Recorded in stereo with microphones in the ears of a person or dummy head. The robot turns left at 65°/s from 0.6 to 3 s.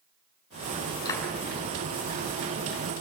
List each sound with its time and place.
1.1 s a clap: 20° left (ahead or behind), 8.5 m; by 1.2 s 5° left (ahead or behind), 8.5 m